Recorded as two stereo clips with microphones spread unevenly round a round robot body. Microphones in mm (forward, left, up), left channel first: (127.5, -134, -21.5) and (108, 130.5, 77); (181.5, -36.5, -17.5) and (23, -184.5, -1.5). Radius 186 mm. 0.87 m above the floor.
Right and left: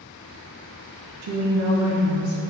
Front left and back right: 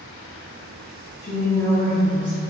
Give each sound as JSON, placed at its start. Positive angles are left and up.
{"t": 1.2, "sound": "a woman speaking", "azimuth_deg": 90, "distance_m": 0.6}